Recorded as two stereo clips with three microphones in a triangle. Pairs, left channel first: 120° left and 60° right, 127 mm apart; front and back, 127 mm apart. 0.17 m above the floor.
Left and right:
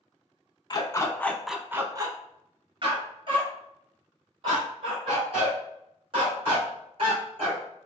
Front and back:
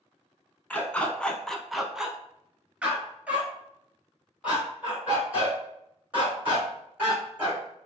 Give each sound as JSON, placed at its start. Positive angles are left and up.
{"t": 0.7, "sound": "a dog barking", "azimuth_deg": 75, "distance_m": 0.7}